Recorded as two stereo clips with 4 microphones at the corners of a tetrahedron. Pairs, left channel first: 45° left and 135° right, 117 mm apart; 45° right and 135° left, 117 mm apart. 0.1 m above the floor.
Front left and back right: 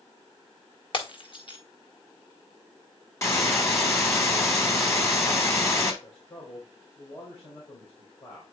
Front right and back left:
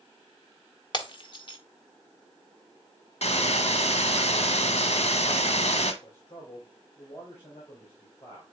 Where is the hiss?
20° right, 1.4 m.